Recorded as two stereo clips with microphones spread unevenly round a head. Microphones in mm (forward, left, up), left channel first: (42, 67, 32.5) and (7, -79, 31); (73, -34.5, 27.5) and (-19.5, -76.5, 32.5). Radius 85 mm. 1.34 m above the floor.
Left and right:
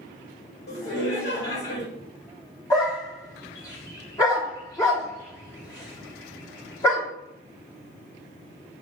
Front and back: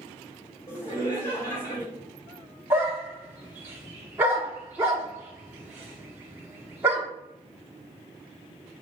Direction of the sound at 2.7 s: 135° left.